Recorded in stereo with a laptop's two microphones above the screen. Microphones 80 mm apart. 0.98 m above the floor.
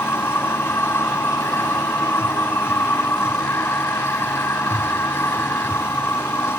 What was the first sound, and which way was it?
A machine running, 30° left (ahead or behind).